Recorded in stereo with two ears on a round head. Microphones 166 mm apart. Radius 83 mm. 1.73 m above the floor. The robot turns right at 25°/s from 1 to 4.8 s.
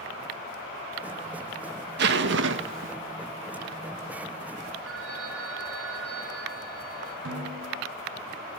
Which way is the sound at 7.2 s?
75° right (ahead or behind).